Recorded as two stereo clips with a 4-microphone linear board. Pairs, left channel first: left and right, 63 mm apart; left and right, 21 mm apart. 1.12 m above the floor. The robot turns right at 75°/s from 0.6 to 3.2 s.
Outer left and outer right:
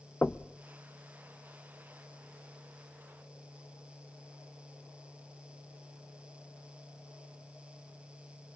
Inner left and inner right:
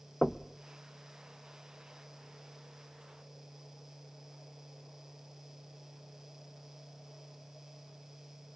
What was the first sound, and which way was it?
Knocking, 30° left (ahead or behind).